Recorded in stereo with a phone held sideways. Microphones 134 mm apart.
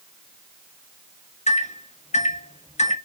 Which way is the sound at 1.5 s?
65° left (ahead or behind).